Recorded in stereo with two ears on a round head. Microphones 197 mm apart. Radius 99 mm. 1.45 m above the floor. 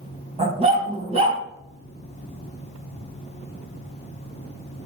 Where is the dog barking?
30° right (ahead or behind), 3 m.